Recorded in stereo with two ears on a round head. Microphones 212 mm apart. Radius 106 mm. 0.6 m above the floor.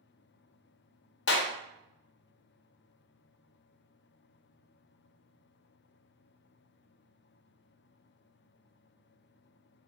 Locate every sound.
1.3 s a clap: 50° left (ahead or behind), 0.5 m